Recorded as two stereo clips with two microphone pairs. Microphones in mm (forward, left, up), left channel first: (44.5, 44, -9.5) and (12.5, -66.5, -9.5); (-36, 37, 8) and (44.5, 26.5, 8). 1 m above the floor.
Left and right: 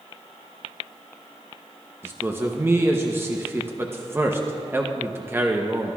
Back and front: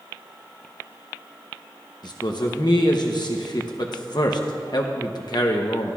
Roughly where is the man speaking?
Behind.